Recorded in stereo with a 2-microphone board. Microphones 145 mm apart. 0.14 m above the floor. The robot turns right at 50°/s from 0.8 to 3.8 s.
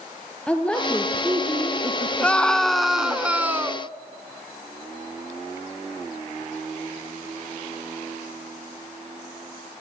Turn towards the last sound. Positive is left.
turn(degrees=-15)  # may be behind; listen again after turning